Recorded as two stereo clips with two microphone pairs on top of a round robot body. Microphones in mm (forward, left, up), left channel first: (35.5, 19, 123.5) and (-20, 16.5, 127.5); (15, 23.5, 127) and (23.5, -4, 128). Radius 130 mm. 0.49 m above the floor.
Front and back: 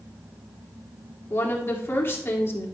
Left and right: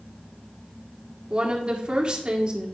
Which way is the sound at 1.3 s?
20° right.